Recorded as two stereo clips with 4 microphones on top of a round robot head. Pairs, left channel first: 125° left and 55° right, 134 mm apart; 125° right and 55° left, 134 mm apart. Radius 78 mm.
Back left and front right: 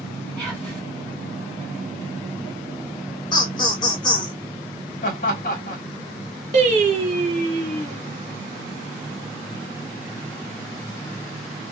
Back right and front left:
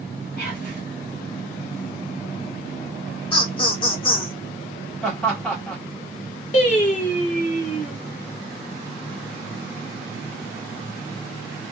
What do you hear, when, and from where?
0.4 s whispering: 140° right, 1.5 m
3.3 s laughter: 175° right, 1.0 m
5.0 s laughter: 155° left, 1.2 m
6.5 s singing: 95° right, 0.8 m